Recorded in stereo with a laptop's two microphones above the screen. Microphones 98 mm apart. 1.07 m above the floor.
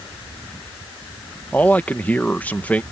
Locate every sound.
1.5 s a man speaking: 15° left (ahead or behind)